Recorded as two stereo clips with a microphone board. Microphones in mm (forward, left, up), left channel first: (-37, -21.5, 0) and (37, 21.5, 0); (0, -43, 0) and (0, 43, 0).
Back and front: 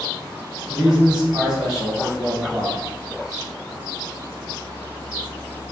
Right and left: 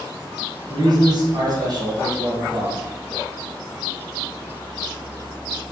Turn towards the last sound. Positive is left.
turn(degrees=110)